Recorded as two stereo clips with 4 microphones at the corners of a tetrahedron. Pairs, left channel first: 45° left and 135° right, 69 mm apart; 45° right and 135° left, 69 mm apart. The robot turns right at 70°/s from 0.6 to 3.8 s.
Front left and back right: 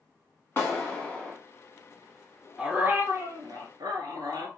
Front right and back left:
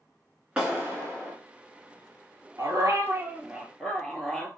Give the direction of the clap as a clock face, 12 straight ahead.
10 o'clock.